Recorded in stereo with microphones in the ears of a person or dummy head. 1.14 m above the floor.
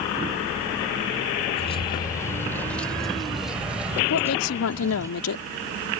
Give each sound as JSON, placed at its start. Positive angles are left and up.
{"t": 1.5, "sound": "keys jangling", "side_deg": 30}
{"t": 4.1, "sound": "a woman speaking", "side_deg": 85}